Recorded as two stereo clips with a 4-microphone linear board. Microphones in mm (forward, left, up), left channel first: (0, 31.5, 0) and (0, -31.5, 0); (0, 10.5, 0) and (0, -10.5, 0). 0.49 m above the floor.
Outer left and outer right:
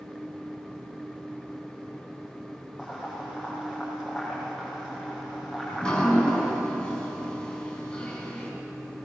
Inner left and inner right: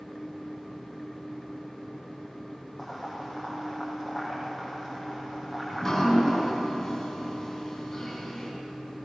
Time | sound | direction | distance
2.8 | boiling | 5° right (ahead or behind) | 7 m
5.7 | dripping | 15° left (ahead or behind) | 5.5 m